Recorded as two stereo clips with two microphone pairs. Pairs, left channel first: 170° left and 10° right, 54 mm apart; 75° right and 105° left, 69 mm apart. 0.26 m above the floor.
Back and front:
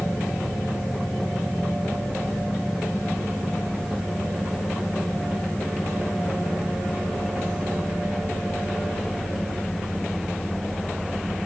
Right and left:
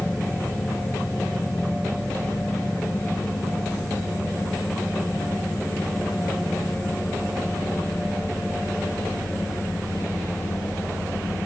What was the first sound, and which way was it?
Only background noise.